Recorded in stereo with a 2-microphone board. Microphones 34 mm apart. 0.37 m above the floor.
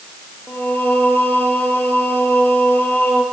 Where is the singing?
70° left (ahead or behind), 4 m.